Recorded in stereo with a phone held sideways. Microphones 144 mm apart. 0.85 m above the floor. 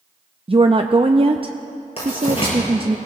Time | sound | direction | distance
0.5 | a woman speaking | 40° right (ahead or behind) | 0.5 m
2.0 | writing | 45° left (ahead or behind) | 5.5 m